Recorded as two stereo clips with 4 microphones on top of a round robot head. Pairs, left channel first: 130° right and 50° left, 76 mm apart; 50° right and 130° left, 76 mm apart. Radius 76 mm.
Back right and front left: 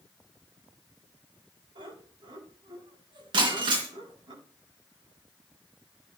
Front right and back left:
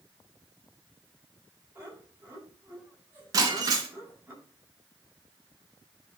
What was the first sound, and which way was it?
Laughter, 65° left.